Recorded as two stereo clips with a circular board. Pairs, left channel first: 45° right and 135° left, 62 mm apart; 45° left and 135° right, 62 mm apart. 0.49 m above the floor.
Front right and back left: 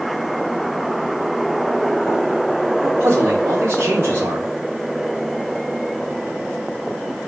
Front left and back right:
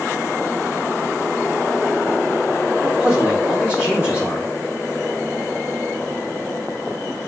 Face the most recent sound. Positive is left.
turn(degrees=155)